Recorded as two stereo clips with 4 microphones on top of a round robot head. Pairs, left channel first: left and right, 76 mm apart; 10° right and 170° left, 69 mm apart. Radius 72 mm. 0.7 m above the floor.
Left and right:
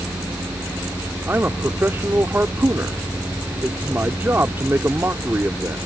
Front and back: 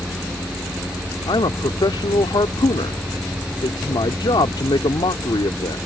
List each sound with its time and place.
1.3 s a man speaking: 25° right